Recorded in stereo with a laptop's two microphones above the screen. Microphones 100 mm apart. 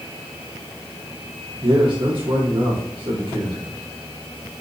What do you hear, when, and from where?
1.6 s a man speaking: 55° right (ahead or behind), 2.0 m